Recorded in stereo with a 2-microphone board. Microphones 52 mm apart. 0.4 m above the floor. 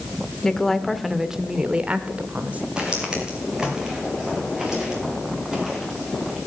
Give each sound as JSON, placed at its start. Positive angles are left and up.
{"t": 0.4, "sound": "a woman speaking", "side_deg": 10, "distance_m": 0.8}
{"t": 2.8, "sound": "footsteps", "side_deg": -15, "distance_m": 3.5}